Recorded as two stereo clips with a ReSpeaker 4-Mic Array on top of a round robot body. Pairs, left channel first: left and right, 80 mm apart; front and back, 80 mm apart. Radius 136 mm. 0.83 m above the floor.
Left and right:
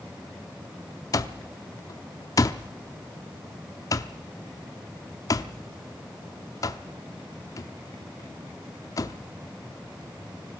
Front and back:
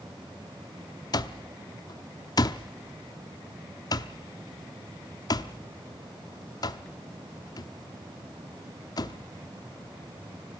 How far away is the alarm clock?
About 0.7 m.